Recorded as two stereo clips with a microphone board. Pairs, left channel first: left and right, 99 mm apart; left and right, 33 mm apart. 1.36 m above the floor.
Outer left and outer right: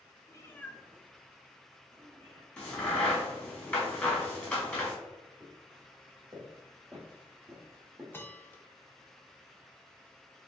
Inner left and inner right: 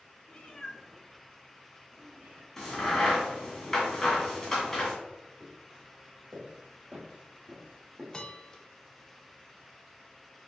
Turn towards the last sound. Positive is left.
turn(degrees=20)  # may be behind; listen again after turning